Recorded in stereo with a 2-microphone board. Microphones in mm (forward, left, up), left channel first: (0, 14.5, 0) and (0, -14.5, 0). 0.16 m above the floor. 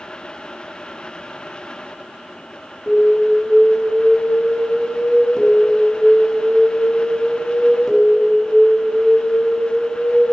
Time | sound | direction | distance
2.9 | an alarm | 20° left (ahead or behind) | 1.7 m